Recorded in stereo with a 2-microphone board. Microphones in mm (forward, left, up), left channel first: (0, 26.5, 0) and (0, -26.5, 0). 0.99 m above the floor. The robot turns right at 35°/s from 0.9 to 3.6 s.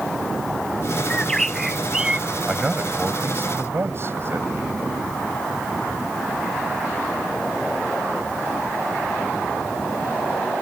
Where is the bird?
160° left; by 2.3 s 160° right.